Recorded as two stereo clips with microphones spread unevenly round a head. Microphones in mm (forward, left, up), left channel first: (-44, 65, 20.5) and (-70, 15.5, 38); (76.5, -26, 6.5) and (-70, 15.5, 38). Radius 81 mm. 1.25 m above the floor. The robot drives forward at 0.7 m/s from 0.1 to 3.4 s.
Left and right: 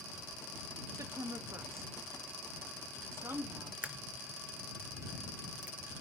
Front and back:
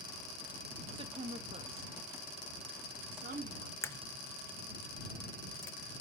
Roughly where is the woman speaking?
Behind right.